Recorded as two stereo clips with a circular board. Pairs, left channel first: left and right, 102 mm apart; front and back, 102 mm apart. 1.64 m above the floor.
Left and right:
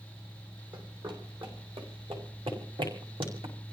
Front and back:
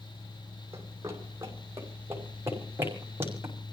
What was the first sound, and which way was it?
Running footsteps, 120° right.